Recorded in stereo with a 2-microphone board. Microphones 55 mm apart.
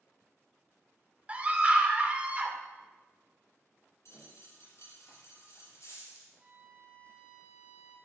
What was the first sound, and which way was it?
A scream, 25° right (ahead or behind).